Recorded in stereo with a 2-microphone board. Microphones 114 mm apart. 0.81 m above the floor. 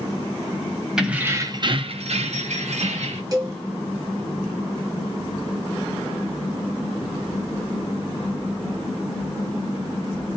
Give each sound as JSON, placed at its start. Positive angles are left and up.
{"t": 1.0, "sound": "keys jangling", "side_deg": -5, "distance_m": 0.6}
{"t": 3.3, "sound": "a cowbell", "side_deg": -35, "distance_m": 0.9}